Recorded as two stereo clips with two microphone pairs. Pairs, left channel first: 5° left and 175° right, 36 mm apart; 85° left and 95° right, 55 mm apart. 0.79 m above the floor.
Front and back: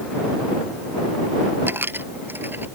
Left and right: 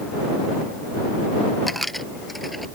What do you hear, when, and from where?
1.7 s a dropped coin: 175° left